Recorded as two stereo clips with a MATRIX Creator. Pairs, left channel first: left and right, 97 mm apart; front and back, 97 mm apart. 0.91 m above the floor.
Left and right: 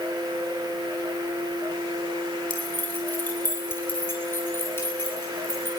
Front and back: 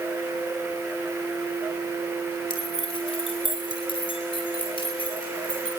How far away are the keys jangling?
About 6.5 m.